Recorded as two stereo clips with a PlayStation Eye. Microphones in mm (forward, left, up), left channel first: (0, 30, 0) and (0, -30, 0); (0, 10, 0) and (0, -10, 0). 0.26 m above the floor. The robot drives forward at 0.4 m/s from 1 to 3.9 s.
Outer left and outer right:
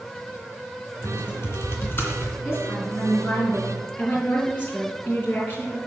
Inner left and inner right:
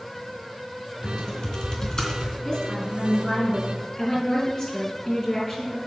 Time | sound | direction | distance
1.0 | typing on a keyboard | 40° left (ahead or behind) | 2.5 m
2.5 | a woman speaking | 30° left (ahead or behind) | 3 m